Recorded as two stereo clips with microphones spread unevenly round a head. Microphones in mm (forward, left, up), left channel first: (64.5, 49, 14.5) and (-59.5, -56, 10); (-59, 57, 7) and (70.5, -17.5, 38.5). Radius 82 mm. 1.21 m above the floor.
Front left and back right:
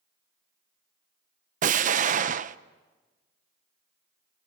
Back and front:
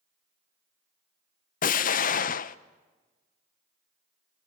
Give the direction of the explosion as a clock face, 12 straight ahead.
6 o'clock.